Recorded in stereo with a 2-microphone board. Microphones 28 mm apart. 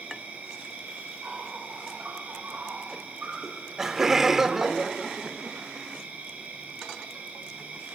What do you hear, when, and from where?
0.0 s an insect: 70° right (ahead or behind), 7.5 m
3.4 s laughter: 20° right (ahead or behind), 1.1 m